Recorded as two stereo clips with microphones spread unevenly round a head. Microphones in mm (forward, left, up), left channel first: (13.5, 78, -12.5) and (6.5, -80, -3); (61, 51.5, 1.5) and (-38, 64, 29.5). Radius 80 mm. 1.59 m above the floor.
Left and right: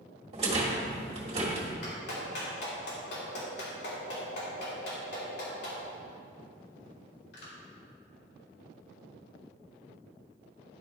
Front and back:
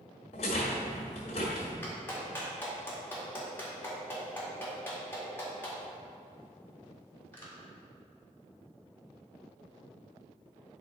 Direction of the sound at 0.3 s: 55° right.